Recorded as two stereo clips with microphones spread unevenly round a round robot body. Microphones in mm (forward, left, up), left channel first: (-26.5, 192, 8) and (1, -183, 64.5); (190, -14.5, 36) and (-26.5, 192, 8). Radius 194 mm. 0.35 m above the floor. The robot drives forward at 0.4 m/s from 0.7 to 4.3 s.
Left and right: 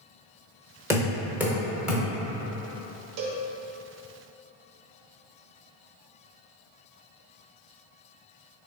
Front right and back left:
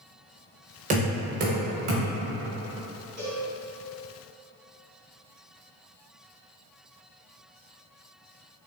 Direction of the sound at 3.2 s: 125° right.